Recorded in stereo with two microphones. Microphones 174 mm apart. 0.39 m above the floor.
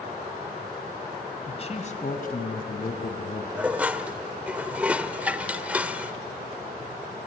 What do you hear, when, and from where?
1.5 s a man speaking: 35° left (ahead or behind), 2 m; by 3.5 s 75° left (ahead or behind), 3.5 m
3.6 s dishes clattering: 5° right (ahead or behind), 0.7 m